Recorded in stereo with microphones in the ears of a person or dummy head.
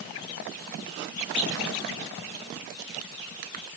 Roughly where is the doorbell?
No doorbell in this recording.